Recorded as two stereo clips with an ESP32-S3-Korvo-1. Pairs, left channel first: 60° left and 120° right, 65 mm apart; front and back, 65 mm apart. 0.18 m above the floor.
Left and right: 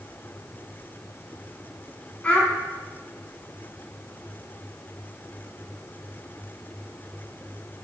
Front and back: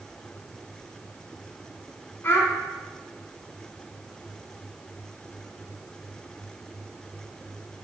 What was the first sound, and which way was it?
A child speaking, 5° left.